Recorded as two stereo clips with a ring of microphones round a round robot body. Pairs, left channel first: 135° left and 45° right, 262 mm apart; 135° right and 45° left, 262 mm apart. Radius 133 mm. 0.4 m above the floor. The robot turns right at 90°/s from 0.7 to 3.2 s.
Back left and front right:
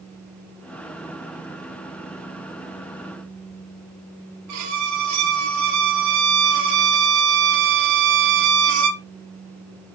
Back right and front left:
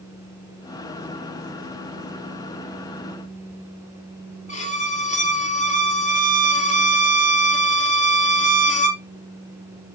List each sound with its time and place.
4.5 s a violin: 70° right, 2.5 m